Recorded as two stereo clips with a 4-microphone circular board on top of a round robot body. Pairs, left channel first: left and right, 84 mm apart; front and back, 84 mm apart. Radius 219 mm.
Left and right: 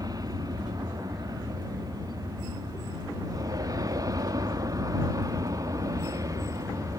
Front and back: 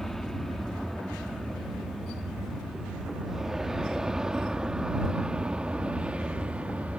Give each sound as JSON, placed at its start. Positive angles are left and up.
{"t": 0.0, "sound": "an aircraft", "azimuth_deg": -85}